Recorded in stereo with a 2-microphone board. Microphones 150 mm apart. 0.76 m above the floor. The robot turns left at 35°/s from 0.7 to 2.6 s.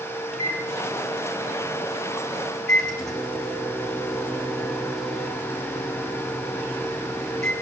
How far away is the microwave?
About 5.5 m.